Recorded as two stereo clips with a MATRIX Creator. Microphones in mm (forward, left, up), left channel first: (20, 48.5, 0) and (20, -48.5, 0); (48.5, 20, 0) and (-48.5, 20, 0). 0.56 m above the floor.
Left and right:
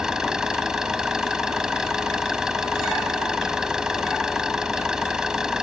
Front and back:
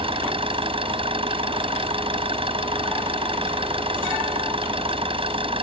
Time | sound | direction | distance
0.0 | an engine running | 175° right | ?